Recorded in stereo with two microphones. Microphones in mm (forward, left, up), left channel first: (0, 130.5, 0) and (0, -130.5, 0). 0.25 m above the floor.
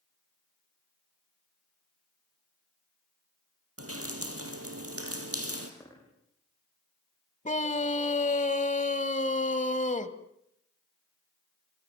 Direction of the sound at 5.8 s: 10° left (ahead or behind).